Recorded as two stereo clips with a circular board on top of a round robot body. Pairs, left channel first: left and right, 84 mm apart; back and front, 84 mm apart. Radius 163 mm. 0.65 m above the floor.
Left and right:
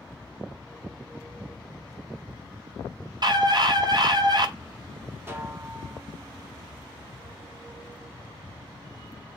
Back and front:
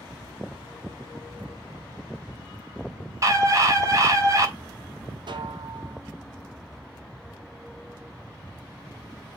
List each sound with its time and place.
3.2 s a scream: 55° right, 3.5 m
5.3 s a snare drum: 25° right, 2 m